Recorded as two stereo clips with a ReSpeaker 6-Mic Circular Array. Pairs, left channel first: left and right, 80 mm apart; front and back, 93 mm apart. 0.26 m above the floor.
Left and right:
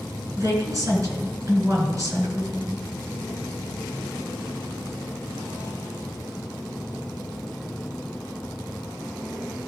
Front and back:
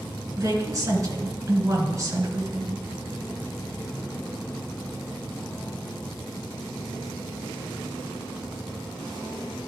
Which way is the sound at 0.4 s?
130° right.